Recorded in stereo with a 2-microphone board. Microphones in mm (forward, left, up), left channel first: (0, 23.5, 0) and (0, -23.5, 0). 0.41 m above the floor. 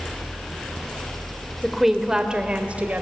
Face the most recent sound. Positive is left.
turn(degrees=-35)  # may be behind; listen again after turning